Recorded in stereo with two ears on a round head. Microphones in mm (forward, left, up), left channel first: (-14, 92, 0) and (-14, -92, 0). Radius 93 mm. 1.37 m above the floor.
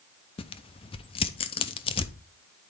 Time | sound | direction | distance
0.4 | tearing paper | 25° left (ahead or behind) | 0.5 m